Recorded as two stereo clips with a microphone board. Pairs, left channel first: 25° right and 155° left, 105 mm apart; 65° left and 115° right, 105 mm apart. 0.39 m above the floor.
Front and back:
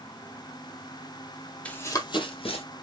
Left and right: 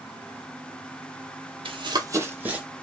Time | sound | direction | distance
1.6 | running footsteps | 100° right | 0.6 m